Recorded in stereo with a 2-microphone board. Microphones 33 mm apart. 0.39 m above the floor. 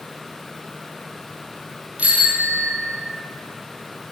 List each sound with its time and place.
2.0 s a bicycle bell: 50° right (ahead or behind), 7 m